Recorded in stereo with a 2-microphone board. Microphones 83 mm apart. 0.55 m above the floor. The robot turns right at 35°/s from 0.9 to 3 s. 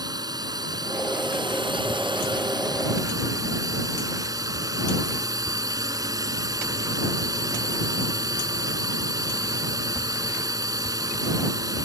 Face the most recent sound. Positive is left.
turn(degrees=-50)